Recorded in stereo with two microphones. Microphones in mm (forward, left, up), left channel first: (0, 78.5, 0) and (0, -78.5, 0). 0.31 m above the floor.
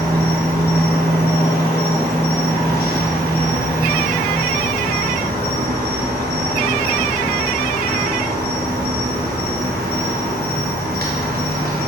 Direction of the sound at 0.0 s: 80° right.